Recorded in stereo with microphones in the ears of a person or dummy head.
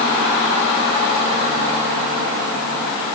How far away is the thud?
I don't hear a thud.